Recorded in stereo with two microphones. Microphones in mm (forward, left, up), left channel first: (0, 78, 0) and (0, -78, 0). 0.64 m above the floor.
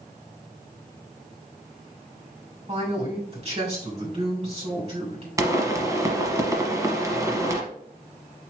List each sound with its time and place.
2.7 s a man speaking: 45° right (ahead or behind), 2.5 m
5.4 s a pop: 20° right (ahead or behind), 1.1 m